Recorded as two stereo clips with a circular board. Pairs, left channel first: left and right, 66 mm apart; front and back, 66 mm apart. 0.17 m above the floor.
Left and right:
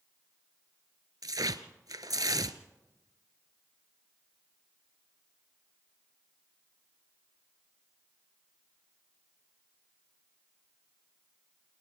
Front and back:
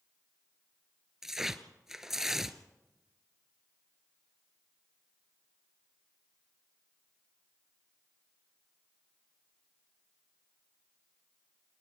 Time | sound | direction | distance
1.2 | tearing paper | 95° right | 0.8 m